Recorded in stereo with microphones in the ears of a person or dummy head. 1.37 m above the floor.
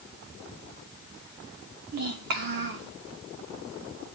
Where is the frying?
I don't hear frying.